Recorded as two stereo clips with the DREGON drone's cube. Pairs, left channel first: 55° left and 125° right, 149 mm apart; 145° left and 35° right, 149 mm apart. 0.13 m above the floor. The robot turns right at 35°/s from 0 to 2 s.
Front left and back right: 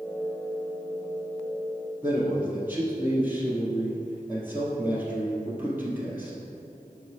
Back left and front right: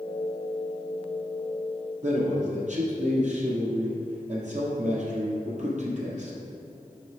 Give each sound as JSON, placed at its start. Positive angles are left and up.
{"t": 2.0, "sound": "a man speaking", "azimuth_deg": -50, "distance_m": 1.9}